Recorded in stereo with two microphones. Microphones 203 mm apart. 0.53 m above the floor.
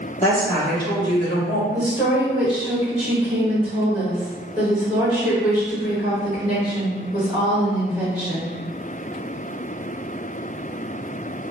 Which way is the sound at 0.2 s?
35° left (ahead or behind).